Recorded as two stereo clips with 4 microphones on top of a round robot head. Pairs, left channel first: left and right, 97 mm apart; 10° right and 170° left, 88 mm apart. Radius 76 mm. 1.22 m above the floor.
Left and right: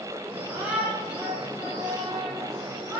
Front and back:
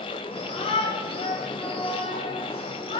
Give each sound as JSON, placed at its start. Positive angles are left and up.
{"t": 0.3, "sound": "a shout", "azimuth_deg": -10, "distance_m": 8.0}